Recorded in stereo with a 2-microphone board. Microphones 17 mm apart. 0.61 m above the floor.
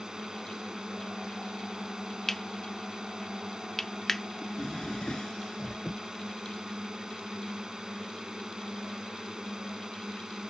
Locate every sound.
0.0 s a drone: 55° right (ahead or behind)
2.3 s cutlery clinking: 20° left (ahead or behind)
4.4 s a drawer: 65° left (ahead or behind)